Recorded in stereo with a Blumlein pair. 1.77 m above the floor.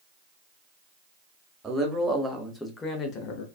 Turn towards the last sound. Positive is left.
turn(degrees=50)